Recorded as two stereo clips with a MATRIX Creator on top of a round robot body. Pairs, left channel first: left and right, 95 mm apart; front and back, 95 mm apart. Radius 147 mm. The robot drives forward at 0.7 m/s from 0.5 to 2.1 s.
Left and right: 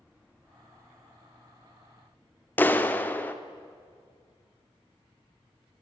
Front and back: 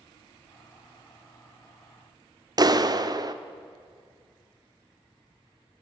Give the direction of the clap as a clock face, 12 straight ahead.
7 o'clock.